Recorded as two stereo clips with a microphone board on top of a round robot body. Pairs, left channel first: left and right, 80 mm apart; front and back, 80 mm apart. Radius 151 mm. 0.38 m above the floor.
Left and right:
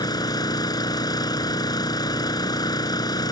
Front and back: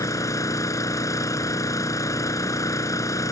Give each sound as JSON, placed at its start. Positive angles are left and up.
{"t": 0.0, "sound": "an engine running", "azimuth_deg": 50}